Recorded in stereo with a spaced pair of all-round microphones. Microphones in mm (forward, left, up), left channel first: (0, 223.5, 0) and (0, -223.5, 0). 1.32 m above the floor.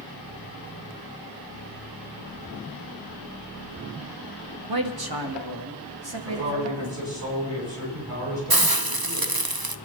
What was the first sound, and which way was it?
A man speaking, 50° right (ahead or behind).